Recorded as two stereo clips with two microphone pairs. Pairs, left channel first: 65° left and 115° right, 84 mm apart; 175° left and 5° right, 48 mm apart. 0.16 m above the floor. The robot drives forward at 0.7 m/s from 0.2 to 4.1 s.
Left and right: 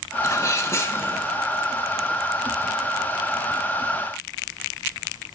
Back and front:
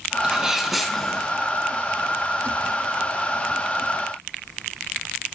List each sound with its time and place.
0.2 s a sneeze: 55° left, 1.3 m; by 1.3 s 110° left, 1.3 m